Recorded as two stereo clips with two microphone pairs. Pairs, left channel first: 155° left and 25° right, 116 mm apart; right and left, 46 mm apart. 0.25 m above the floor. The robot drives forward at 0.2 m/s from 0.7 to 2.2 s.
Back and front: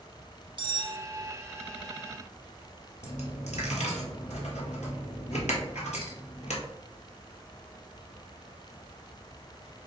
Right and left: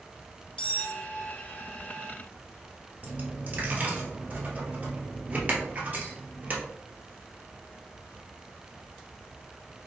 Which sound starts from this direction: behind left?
A dropped coin, at 3.0 s.